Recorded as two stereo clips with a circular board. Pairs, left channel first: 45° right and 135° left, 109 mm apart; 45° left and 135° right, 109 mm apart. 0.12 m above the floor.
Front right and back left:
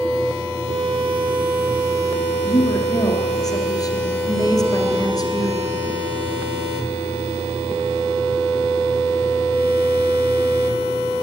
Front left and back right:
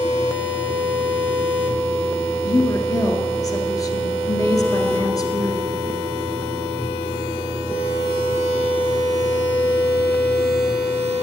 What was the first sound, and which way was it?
A woman speaking, straight ahead.